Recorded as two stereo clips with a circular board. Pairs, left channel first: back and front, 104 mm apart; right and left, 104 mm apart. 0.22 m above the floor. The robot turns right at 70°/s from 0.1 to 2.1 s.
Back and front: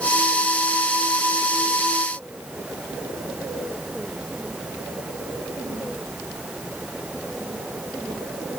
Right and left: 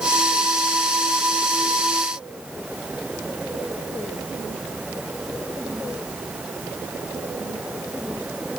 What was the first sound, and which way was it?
Only background noise.